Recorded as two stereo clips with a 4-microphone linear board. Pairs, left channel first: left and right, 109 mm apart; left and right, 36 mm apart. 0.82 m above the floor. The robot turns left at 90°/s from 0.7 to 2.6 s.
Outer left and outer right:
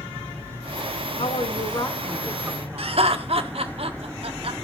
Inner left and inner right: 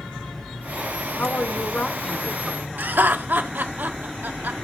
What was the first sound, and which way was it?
A woman speaking, 90° left.